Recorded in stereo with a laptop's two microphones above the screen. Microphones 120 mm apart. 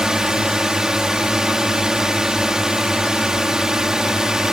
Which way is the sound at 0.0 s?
5° right (ahead or behind).